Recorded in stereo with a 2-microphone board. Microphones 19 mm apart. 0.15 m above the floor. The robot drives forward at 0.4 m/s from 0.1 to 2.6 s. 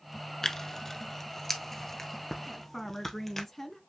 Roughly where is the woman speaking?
Centre.